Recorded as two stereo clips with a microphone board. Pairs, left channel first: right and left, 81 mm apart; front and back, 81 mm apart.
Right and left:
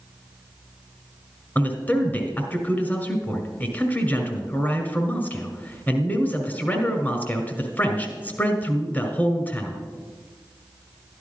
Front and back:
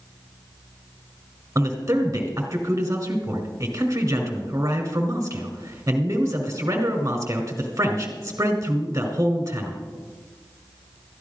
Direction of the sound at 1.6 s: 145° right.